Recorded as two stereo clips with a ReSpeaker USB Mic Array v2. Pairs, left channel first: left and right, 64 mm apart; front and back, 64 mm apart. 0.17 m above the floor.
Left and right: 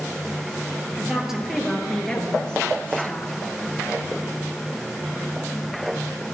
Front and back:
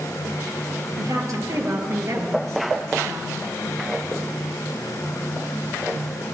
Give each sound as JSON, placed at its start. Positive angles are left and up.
{"t": 1.0, "sound": "a woman speaking", "azimuth_deg": -170, "distance_m": 2.5}